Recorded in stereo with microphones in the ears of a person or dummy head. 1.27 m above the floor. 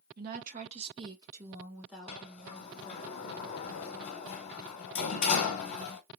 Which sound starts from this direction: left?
A sliding door, at 2.1 s.